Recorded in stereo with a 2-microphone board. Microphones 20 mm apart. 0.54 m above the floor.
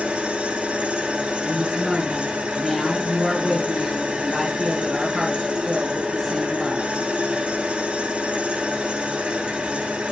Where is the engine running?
80° right, 3.5 m.